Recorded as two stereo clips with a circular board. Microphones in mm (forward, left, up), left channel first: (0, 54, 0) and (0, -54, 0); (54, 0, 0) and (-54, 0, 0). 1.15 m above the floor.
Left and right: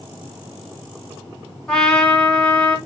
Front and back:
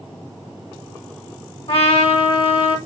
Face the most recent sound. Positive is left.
turn(degrees=10)